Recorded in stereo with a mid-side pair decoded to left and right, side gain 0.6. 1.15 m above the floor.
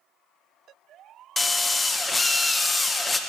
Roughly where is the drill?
Ahead.